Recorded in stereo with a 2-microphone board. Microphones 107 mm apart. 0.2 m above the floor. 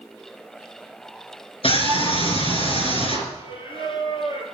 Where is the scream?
60° left (ahead or behind), 3.5 m.